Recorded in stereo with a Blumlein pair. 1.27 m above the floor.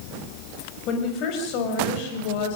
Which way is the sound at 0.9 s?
35° left.